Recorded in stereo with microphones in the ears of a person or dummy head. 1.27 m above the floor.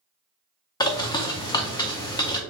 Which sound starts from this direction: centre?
A bird, at 0.8 s.